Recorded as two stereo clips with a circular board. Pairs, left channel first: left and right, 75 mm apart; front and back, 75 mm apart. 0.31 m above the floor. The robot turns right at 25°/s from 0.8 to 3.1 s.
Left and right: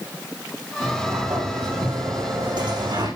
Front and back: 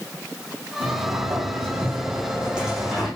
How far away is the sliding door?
About 9 m.